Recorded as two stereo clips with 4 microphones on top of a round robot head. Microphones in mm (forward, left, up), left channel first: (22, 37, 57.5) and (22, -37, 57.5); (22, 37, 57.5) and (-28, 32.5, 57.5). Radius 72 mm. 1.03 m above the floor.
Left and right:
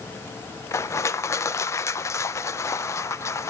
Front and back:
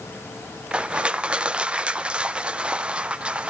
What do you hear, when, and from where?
0.7 s crushing: 120° left, 0.6 m